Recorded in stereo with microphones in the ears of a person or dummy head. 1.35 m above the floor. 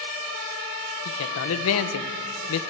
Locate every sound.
1.1 s a man speaking: 80° left, 1.1 m